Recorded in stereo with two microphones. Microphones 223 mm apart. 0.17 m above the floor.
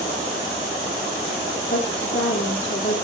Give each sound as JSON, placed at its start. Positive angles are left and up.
{"t": 1.7, "sound": "a woman speaking", "side_deg": 65, "distance_m": 4.5}